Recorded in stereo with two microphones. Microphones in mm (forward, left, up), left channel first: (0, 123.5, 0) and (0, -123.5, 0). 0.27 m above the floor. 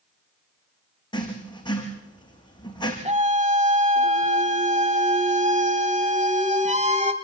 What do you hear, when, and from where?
1.1 s writing: 20° left (ahead or behind), 5.5 m
3.0 s a scream: 25° right (ahead or behind), 1.5 m